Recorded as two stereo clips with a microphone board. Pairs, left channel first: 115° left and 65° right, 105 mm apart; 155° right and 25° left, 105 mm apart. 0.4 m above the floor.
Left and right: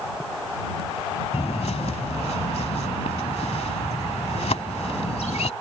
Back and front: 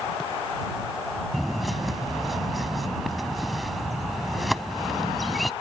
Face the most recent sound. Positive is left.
turn(degrees=110)